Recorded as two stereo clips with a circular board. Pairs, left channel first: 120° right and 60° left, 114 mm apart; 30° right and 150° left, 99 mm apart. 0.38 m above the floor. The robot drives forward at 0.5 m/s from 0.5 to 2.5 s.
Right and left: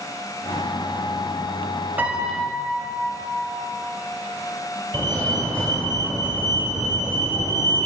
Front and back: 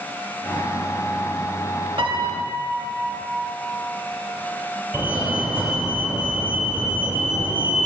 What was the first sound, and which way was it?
A piano, 135° left.